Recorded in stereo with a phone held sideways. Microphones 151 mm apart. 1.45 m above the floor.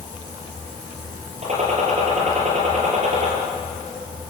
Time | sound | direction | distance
1.4 | a gunshot | 45° right (ahead or behind) | 8 m